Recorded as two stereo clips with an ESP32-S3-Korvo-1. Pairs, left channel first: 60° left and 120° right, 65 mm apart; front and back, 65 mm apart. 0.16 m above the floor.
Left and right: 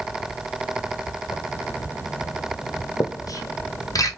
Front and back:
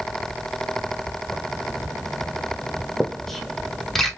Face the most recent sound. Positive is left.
turn(degrees=85)